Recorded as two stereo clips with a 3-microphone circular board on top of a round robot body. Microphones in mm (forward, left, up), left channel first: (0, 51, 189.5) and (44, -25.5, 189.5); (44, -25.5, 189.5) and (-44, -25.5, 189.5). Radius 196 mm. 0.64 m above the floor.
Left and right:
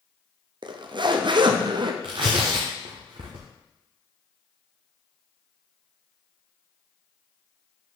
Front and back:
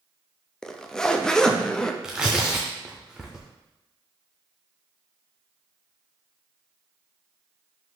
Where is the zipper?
85° right, 0.8 m.